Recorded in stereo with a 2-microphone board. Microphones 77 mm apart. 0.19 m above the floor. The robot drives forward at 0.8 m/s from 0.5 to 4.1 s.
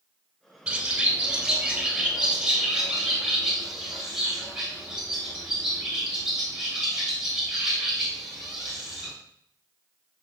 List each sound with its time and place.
0.7 s a bird: 15° right (ahead or behind), 1.1 m; by 9.1 s 5° right (ahead or behind), 3.5 m